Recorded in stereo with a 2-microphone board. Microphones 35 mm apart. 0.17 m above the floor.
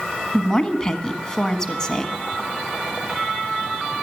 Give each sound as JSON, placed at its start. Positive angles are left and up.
{"t": 0.3, "sound": "a woman speaking", "side_deg": 15, "distance_m": 1.2}